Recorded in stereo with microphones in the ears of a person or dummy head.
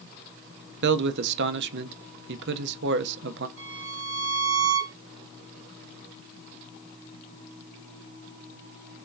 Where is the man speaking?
65° right (ahead or behind), 0.6 m.